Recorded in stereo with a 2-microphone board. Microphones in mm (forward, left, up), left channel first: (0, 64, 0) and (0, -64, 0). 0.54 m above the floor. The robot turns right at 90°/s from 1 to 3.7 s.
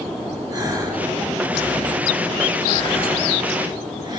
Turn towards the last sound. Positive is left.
turn(degrees=-145)